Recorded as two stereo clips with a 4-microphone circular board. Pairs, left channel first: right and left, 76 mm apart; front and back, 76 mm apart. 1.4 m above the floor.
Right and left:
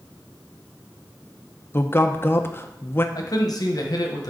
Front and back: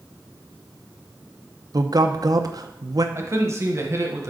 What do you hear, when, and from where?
1.7 s a man speaking: 150° right, 0.7 m
3.1 s a man speaking: 130° right, 1.1 m